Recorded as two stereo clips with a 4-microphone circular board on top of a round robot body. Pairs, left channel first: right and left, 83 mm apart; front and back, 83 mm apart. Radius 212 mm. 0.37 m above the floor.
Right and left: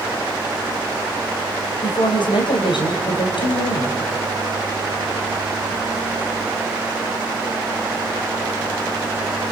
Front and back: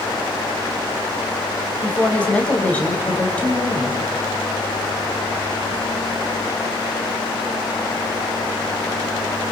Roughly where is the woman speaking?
Right.